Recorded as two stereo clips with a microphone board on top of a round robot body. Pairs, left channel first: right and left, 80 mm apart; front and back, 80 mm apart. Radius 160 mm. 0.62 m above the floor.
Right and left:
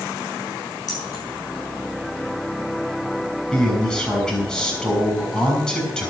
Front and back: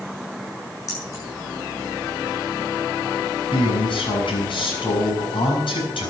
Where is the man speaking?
10° right, 6.5 m.